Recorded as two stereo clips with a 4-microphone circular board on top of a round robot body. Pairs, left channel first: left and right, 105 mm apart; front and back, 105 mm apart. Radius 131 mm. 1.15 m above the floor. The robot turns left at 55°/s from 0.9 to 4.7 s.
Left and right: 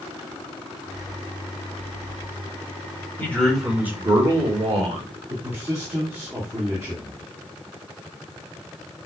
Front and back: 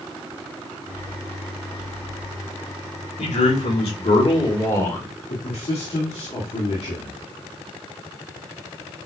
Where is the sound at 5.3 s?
25° right, 1.7 m.